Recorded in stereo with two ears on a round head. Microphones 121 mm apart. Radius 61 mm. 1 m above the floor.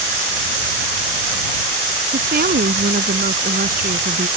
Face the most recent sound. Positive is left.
turn(degrees=-70)  # may be behind; listen again after turning